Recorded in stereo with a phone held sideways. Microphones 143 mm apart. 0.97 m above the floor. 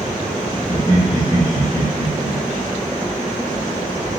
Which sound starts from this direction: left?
Laughter, at 0.7 s.